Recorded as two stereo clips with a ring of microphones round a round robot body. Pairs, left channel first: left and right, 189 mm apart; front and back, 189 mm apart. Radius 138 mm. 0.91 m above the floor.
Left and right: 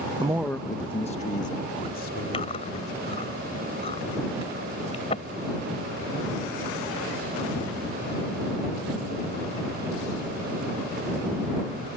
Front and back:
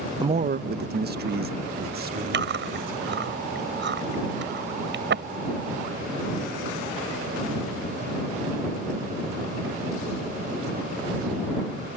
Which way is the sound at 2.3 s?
160° left.